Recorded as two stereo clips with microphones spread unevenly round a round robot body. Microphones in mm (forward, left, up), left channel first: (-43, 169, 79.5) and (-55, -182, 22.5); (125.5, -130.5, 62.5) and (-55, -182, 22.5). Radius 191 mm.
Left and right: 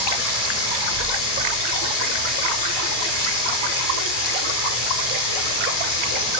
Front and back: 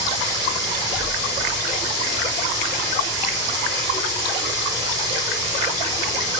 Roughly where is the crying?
No crying in this recording.